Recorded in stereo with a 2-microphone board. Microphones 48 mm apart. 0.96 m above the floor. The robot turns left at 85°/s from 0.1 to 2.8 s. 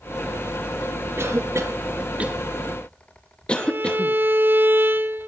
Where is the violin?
45° right (ahead or behind), 0.7 m.